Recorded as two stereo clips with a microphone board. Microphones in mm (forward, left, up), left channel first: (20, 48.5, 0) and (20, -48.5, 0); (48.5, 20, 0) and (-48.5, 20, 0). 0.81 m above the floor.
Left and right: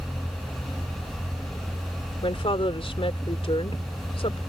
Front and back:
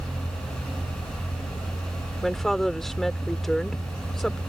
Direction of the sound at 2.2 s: 85° left.